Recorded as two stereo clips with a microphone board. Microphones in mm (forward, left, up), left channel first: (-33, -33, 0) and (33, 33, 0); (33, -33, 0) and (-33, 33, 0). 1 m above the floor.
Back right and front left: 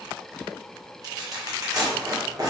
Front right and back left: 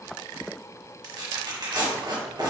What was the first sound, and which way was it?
Tearing paper, 95° left.